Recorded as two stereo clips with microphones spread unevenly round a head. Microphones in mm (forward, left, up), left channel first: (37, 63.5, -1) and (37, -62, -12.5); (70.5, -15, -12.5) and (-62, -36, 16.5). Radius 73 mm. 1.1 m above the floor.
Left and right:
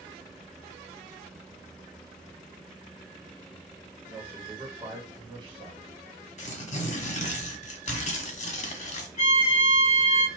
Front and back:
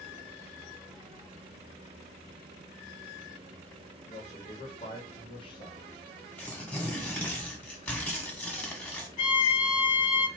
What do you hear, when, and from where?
4.1 s a man speaking: 15° right, 1.9 m; by 5.9 s 50° right, 1.6 m
6.4 s tearing paper: 95° left, 0.9 m
9.2 s a violin: 60° left, 1.4 m